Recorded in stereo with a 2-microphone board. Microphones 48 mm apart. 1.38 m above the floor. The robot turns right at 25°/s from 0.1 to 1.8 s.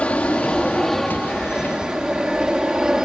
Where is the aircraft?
155° left; by 3.1 s 165° right.